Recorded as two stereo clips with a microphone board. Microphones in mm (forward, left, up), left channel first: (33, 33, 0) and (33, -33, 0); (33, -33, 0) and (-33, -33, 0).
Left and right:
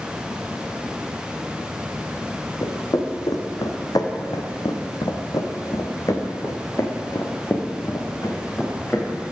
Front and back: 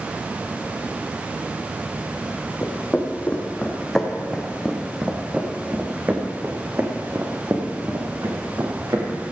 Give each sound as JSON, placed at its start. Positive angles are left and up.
{"t": 2.6, "sound": "footsteps", "azimuth_deg": 60, "distance_m": 2.5}